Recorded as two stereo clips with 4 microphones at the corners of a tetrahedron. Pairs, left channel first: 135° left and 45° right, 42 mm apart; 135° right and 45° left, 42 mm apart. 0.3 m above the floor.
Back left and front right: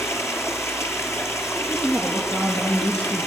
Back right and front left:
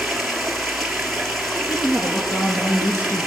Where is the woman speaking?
165° right, 5 m.